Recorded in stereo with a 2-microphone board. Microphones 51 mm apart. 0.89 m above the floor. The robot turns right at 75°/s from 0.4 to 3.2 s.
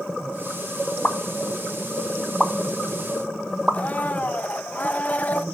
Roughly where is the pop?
Left.